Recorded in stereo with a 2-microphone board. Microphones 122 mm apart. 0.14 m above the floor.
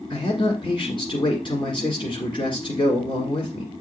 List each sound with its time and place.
0.1 s a man speaking: 40° left (ahead or behind), 1.7 m